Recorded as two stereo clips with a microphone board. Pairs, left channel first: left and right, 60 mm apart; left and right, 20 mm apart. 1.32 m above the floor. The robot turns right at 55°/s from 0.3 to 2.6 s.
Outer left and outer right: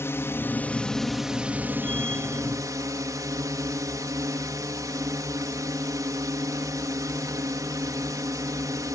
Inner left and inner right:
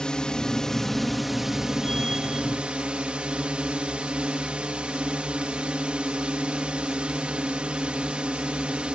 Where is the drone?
135° left; by 8.9 s 100° right.